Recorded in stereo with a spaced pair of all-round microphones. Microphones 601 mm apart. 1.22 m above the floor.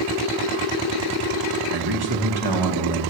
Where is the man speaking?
40° right (ahead or behind), 1.4 m.